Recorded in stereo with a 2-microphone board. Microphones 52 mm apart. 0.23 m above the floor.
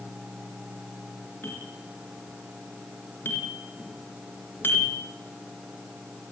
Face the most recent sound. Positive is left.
turn(degrees=45)  # may be behind; listen again after turning